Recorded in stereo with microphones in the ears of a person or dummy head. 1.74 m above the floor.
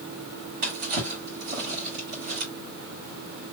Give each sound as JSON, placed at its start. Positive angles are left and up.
{"t": 0.6, "sound": "a drawer", "side_deg": -45, "distance_m": 2.0}